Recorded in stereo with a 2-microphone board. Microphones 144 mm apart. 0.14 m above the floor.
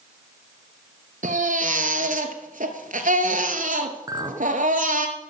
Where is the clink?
25° right (ahead or behind), 0.9 m.